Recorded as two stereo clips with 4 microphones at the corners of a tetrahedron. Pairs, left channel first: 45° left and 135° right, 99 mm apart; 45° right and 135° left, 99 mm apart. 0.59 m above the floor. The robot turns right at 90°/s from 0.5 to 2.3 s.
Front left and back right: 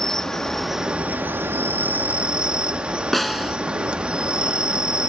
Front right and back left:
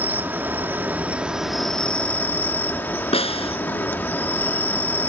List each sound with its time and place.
0.0 s an insect: 125° left; by 5.1 s 75° right
3.1 s a snare drum: 45° right